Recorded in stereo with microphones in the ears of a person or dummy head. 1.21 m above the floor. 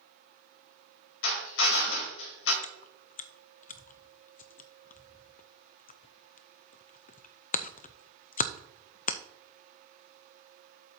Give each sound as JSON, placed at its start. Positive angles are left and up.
{"t": 1.2, "sound": "a drill", "side_deg": 75, "distance_m": 2.5}
{"t": 2.6, "sound": "chewing", "side_deg": 45, "distance_m": 0.5}